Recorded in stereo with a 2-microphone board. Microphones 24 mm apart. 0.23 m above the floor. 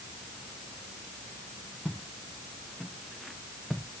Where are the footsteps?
5° right (ahead or behind), 4 m; by 3.9 s 20° right (ahead or behind), 5 m.